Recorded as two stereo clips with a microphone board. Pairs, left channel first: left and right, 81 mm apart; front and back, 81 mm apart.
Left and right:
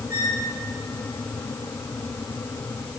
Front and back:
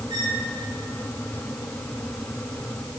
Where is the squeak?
150° right, 5 m.